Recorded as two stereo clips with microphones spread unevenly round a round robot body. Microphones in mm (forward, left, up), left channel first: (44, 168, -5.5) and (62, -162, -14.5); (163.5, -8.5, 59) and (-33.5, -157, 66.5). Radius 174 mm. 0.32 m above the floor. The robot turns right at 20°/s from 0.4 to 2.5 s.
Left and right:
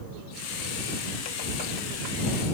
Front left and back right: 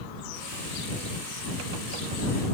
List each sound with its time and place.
Only background noise.